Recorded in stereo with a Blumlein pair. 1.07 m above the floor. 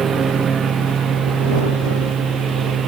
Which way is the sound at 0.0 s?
20° right.